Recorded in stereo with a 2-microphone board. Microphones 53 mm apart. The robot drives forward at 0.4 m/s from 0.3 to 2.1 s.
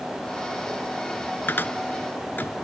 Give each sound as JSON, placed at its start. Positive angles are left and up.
{"t": 1.5, "sound": "a cupboard door", "side_deg": 45}